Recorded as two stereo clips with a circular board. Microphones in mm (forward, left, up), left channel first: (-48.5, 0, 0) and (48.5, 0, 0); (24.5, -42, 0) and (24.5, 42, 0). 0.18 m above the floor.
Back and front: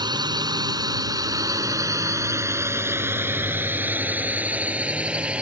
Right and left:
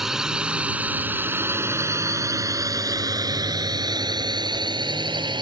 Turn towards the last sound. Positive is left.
turn(degrees=80)